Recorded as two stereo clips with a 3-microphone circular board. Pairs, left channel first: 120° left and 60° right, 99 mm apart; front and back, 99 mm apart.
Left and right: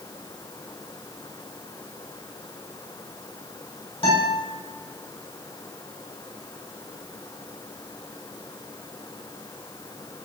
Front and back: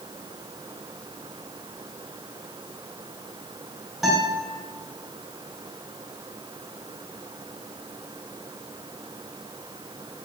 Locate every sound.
4.0 s a guitar: 95° left, 3.5 m